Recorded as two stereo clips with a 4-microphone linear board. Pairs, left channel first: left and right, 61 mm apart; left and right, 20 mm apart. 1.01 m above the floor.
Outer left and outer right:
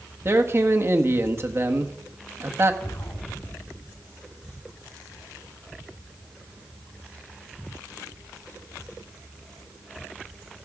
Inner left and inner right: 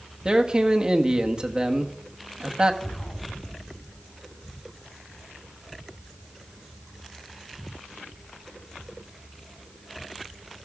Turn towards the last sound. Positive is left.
turn(degrees=75)  # may be behind; listen again after turning